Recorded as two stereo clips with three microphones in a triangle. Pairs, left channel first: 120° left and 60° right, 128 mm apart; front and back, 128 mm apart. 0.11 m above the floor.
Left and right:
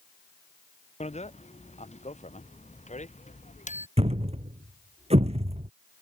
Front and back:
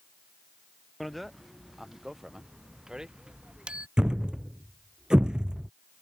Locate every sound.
1.0 s a bicycle bell: 90° left; by 3.9 s 100° left
4.0 s a thud: 95° right